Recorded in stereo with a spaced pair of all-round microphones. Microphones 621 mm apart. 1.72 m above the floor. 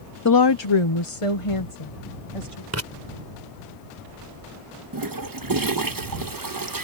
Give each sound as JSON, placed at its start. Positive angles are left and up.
{"t": 0.2, "sound": "a woman speaking", "side_deg": 30}
{"t": 2.7, "sound": "writing", "side_deg": -25}
{"t": 4.9, "sound": "a toilet flushing", "side_deg": -35}